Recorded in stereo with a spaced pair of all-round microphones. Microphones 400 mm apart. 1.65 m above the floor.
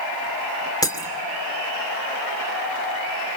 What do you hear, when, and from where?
0.8 s breaking glass: 10° left (ahead or behind), 2.5 m